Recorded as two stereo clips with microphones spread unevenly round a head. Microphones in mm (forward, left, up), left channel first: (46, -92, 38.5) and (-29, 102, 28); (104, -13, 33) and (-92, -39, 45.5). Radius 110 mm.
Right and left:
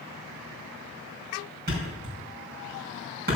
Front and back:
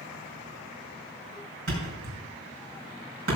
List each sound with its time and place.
1.7 s a thud: 160° left, 5 m